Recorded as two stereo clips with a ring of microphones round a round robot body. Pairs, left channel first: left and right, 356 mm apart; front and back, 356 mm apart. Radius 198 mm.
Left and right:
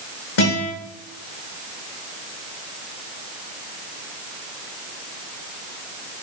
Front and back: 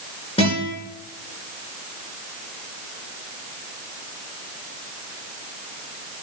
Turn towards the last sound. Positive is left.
turn(degrees=75)